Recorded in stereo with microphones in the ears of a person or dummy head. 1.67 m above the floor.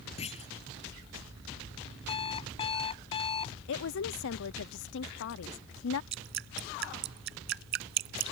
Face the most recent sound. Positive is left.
turn(degrees=-55)  # may be behind; listen again after turning